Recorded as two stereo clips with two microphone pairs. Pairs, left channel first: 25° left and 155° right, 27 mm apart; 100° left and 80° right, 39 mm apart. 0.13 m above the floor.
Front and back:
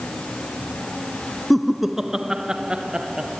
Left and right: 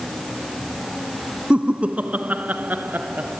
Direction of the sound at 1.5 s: 70° right.